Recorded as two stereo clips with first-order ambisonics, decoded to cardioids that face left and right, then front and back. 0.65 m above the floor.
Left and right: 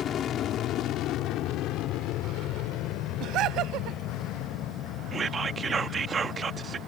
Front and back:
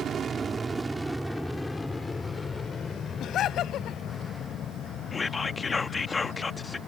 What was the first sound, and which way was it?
An aircraft, 135° left.